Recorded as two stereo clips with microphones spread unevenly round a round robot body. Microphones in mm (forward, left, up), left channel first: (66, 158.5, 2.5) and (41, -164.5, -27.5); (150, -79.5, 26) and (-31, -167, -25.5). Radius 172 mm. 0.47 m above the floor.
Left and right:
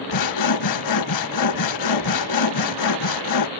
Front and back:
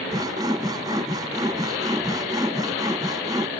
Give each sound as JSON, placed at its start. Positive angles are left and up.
{"t": 0.1, "sound": "sawing", "azimuth_deg": 120}